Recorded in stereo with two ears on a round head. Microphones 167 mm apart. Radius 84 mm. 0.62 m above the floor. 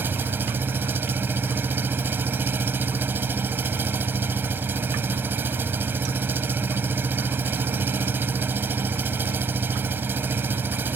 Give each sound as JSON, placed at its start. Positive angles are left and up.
{"t": 0.0, "sound": "an engine running", "side_deg": -10}